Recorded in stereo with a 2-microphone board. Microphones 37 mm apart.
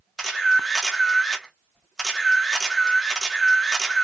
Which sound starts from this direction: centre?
A camera shutter, at 0.2 s.